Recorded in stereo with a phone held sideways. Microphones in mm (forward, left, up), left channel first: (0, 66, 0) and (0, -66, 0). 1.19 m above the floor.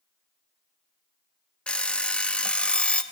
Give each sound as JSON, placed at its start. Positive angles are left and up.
{"t": 1.7, "sound": "an alarm clock", "side_deg": 10, "distance_m": 0.8}